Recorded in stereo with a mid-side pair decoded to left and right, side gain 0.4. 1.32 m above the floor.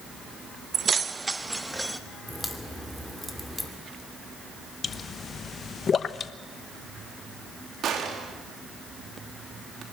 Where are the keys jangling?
55° right, 0.7 m; by 2.0 s 5° right, 1.5 m.